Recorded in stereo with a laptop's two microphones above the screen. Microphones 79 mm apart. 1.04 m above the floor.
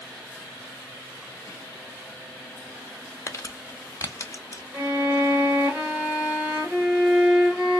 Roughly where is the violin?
Centre.